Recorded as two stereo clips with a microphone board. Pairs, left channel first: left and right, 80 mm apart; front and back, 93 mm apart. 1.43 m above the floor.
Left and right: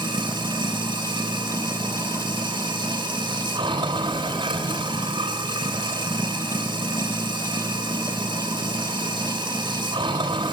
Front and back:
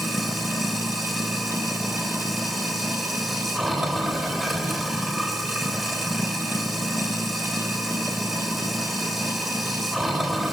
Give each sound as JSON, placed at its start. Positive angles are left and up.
{"t": 0.0, "sound": "running water", "azimuth_deg": -95, "distance_m": 3.0}